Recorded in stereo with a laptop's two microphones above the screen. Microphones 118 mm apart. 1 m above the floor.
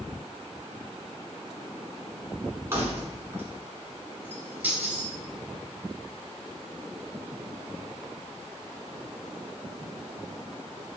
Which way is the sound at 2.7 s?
20° right (ahead or behind).